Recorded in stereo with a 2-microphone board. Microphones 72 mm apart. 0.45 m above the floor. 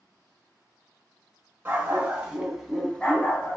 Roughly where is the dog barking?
Right.